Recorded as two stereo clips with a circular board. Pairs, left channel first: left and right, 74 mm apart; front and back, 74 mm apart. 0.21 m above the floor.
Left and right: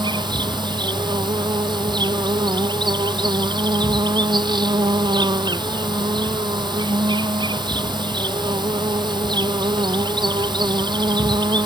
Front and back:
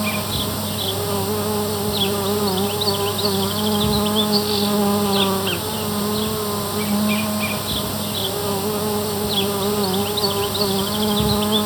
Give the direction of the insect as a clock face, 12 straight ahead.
3 o'clock.